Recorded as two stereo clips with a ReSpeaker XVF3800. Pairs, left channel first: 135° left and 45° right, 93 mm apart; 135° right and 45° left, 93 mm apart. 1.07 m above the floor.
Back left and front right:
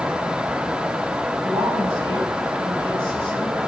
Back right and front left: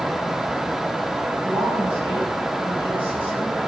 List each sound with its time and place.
1.4 s a woman speaking: 25° right, 9 m